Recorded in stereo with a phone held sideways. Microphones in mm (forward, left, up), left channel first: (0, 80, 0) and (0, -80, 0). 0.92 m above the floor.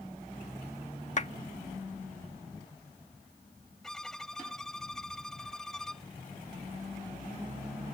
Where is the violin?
5° left (ahead or behind).